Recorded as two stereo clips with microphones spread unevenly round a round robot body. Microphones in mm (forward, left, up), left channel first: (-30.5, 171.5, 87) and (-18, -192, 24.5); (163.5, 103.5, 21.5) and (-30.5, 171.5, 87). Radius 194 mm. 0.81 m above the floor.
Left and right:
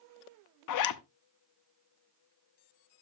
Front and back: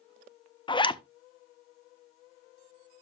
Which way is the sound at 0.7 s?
45° left.